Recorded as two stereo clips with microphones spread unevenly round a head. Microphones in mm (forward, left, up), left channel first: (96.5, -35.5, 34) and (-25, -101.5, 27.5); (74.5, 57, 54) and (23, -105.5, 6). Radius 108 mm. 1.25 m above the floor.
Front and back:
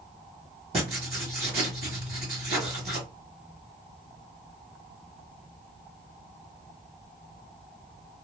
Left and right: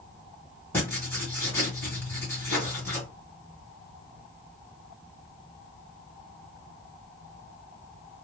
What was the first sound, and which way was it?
Writing, 145° left.